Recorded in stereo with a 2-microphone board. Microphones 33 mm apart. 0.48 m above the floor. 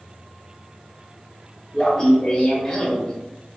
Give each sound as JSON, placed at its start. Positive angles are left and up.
{"t": 1.7, "sound": "laughter", "side_deg": 5, "distance_m": 0.7}